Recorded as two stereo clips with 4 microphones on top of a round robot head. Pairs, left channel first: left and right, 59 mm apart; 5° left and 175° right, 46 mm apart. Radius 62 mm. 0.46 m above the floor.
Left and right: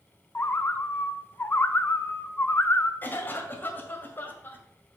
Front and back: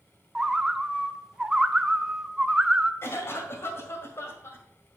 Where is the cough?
35° left, 2 m.